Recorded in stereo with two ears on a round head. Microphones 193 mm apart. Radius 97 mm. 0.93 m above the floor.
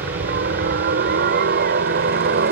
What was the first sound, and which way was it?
A helicopter, 45° right (ahead or behind).